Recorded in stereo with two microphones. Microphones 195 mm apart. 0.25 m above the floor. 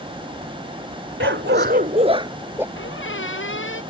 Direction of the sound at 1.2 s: 75° right (ahead or behind).